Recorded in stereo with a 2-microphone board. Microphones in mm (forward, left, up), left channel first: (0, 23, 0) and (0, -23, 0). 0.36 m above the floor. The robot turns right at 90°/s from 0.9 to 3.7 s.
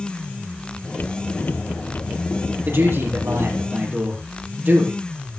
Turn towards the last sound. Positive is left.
turn(degrees=-35)